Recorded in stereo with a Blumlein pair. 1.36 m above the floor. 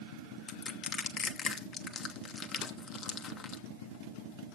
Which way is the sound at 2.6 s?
30° left.